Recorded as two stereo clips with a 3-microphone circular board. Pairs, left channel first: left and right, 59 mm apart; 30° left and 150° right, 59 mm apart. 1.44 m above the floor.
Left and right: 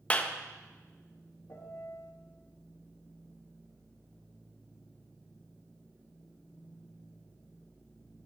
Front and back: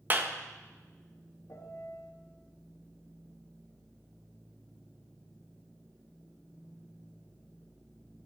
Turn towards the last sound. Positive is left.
turn(degrees=55)